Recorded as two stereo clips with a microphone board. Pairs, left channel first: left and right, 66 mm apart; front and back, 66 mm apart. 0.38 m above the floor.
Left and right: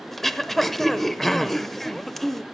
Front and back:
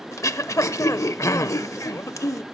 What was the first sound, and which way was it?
Throat clearing, 5° left.